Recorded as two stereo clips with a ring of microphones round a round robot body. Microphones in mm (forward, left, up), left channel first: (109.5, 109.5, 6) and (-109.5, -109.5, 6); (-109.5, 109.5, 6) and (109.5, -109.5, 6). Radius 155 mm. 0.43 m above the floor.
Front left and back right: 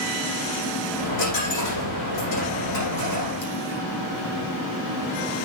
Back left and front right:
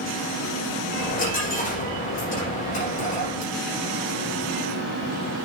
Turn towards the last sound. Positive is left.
turn(degrees=70)